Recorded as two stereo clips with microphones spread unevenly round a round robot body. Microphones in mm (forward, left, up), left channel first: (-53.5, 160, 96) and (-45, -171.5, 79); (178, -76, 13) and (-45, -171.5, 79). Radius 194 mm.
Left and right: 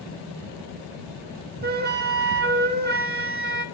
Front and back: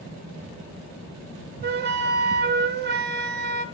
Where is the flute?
150° right, 0.7 m.